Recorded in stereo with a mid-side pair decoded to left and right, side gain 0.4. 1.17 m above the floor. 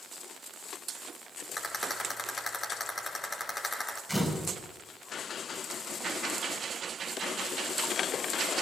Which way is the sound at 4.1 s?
10° left.